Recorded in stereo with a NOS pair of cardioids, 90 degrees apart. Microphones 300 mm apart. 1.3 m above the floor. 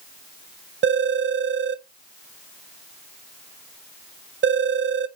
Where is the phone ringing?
40° right, 0.6 m.